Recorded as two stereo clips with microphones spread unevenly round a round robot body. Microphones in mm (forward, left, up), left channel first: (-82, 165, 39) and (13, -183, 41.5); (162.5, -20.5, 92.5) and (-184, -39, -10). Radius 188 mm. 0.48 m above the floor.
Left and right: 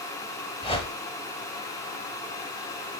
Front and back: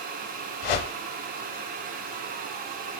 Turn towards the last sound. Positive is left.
turn(degrees=30)